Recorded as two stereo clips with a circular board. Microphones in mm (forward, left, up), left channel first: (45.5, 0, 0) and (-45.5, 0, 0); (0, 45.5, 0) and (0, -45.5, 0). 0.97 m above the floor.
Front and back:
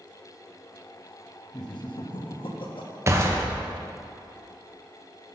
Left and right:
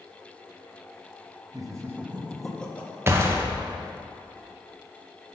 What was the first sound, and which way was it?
Laughter, 45° right.